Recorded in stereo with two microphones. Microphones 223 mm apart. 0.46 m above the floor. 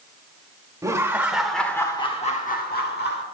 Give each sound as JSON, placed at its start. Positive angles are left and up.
{"t": 0.8, "sound": "laughter", "side_deg": -15, "distance_m": 1.5}